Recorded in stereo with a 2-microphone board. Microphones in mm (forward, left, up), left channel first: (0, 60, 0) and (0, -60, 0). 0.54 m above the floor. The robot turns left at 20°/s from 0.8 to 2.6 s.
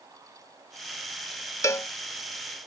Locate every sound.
1.6 s a cowbell: 25° left (ahead or behind); by 1.9 s 20° left (ahead or behind)